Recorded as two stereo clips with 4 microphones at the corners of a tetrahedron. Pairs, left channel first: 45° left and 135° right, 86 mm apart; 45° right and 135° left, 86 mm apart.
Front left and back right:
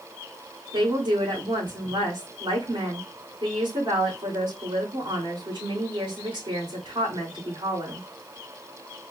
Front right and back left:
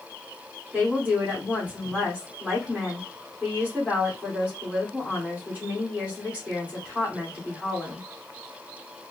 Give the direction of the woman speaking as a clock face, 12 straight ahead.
5 o'clock.